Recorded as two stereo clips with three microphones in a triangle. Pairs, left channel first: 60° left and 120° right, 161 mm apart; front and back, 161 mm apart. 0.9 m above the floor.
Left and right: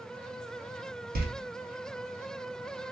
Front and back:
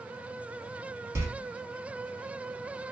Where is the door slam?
110° right, 0.5 m.